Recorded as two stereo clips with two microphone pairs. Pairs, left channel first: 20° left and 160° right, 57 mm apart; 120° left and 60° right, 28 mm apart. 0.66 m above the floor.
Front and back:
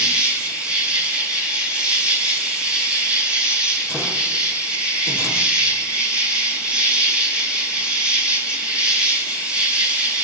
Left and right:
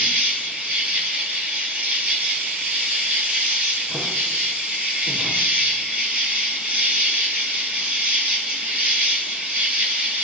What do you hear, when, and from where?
0.0 s an insect: 85° right, 3 m